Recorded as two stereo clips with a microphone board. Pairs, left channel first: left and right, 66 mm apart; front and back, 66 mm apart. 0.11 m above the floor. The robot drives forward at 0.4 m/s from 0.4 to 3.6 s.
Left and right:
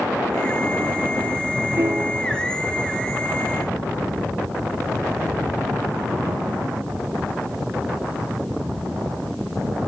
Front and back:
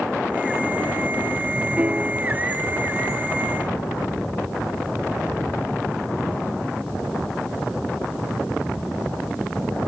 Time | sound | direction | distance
1.8 | a piano | 115° right | 0.8 m